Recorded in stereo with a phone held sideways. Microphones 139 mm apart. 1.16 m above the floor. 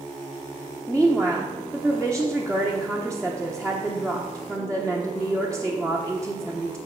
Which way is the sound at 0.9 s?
10° left (ahead or behind).